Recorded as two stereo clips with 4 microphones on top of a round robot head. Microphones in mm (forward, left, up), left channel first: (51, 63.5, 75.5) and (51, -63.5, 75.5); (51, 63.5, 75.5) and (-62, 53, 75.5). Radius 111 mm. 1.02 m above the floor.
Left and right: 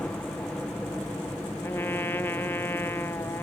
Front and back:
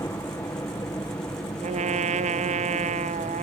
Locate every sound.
0.0 s a helicopter: 20° left
1.6 s a trumpet: 170° left